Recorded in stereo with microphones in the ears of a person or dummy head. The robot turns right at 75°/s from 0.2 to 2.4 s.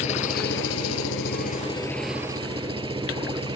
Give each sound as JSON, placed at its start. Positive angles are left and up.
{"t": 0.0, "sound": "an engine running", "azimuth_deg": 40}